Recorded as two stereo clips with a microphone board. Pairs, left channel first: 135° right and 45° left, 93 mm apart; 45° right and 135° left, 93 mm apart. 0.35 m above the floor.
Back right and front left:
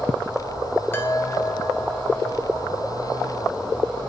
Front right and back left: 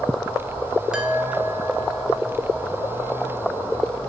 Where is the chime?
160° right, 1.6 m.